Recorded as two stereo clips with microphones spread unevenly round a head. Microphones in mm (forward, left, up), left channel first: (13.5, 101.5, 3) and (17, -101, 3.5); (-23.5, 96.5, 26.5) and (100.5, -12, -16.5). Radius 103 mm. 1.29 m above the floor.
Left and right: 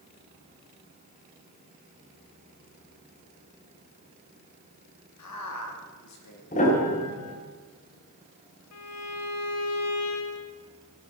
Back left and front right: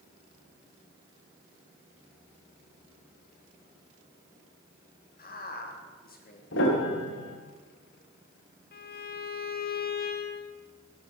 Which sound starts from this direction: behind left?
A piano, at 6.5 s.